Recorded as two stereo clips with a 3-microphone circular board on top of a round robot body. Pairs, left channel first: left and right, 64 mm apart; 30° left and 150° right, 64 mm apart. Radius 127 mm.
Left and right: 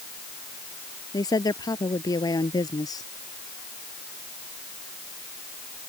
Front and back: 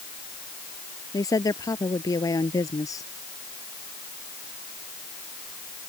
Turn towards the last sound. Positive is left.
turn(degrees=65)